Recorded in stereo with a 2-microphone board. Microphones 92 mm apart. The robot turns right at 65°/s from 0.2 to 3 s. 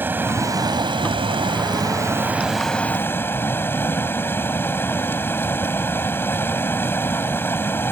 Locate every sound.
0.0 s running water: 155° right; by 7.9 s 25° left